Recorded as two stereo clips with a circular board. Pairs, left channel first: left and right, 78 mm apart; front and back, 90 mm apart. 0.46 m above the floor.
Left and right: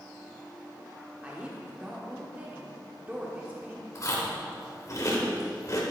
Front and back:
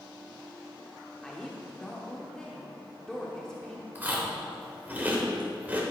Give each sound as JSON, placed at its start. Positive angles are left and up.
{"t": 1.2, "sound": "a woman speaking", "azimuth_deg": -70, "distance_m": 1.3}
{"t": 4.0, "sound": "chewing", "azimuth_deg": 115, "distance_m": 1.8}